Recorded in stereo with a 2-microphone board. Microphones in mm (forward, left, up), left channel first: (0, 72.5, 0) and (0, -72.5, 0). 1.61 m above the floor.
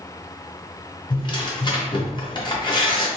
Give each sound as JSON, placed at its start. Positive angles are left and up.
{"t": 1.1, "sound": "tearing paper", "side_deg": 35, "distance_m": 0.8}